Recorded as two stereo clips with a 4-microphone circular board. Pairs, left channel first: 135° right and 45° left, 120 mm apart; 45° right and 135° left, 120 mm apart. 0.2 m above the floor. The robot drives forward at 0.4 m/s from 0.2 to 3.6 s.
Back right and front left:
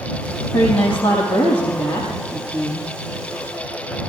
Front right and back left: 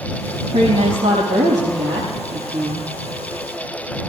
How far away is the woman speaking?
About 6 m.